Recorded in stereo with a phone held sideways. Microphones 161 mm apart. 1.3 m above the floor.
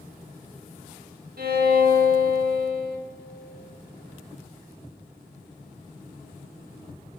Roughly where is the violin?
Right.